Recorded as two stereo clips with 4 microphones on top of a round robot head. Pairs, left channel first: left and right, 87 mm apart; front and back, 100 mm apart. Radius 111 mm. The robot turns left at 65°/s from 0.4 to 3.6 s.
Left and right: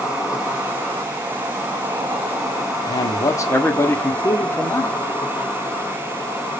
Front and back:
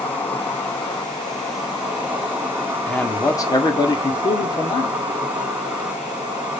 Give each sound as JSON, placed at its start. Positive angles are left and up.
{"t": 0.0, "sound": "an insect", "azimuth_deg": -25, "distance_m": 1.4}
{"t": 2.9, "sound": "a man speaking", "azimuth_deg": 80, "distance_m": 1.2}